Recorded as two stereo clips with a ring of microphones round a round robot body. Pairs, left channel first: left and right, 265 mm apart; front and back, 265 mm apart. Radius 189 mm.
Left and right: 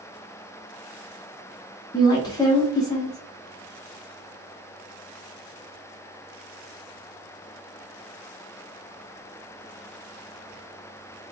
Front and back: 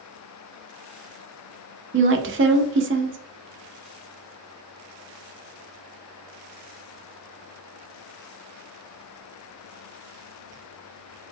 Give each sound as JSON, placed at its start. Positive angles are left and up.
{"t": 1.9, "sound": "a woman speaking", "azimuth_deg": 160, "distance_m": 0.7}